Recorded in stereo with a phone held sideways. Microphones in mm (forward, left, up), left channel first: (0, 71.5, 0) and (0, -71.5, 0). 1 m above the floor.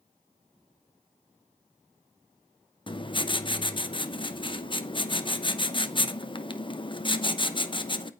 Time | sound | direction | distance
2.9 | writing | 35° left (ahead or behind) | 0.8 m